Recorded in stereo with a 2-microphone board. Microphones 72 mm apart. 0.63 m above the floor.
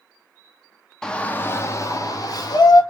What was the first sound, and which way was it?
A shout, 10° left (ahead or behind).